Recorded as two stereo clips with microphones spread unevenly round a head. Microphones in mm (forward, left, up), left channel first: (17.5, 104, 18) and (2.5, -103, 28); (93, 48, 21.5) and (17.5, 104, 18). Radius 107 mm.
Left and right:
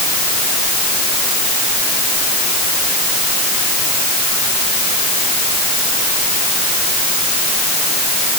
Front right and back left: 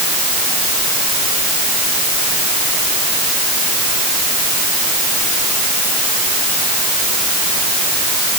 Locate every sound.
Only background noise.